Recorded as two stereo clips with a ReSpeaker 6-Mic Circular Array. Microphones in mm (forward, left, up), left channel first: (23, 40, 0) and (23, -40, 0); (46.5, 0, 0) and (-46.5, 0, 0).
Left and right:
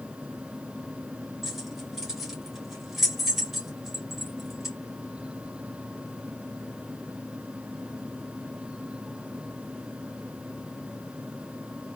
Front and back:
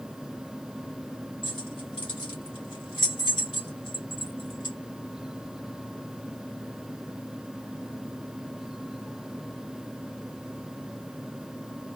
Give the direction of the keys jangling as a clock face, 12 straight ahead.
12 o'clock.